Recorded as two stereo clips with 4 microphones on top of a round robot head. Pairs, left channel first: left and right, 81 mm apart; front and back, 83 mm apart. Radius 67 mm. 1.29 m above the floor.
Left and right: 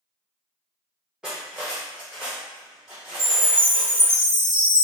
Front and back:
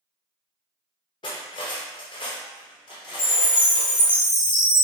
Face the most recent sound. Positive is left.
turn(degrees=5)